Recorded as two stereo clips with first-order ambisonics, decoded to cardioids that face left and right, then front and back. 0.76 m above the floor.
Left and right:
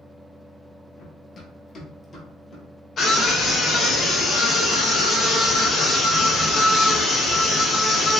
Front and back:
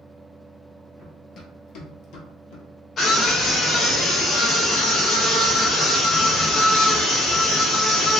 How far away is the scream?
About 0.7 m.